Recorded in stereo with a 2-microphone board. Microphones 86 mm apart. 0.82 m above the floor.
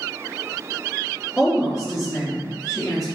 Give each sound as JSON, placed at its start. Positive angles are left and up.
{"t": 1.4, "sound": "a woman speaking", "side_deg": -5, "distance_m": 1.3}